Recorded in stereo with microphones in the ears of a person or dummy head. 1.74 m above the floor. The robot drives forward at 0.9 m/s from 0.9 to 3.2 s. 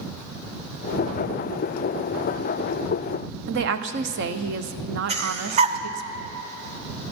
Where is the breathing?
35° right (ahead or behind), 0.9 m.